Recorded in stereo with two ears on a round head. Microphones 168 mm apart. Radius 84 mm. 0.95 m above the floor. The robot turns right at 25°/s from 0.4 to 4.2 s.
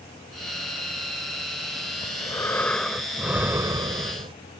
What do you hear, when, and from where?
2.0 s breathing: 155° left; by 4.3 s 150° right